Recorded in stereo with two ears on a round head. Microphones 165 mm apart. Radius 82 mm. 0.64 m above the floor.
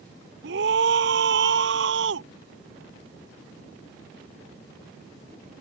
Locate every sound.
0.4 s a scream: 70° right (ahead or behind); by 2.3 s 75° right (ahead or behind)